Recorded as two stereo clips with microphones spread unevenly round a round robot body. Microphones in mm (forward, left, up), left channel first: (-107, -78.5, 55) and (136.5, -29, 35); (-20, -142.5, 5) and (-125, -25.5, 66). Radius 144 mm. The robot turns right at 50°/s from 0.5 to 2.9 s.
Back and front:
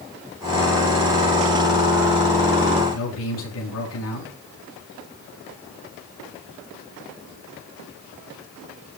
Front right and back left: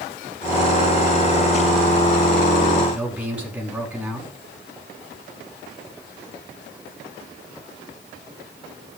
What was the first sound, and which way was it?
A man speaking, 140° right.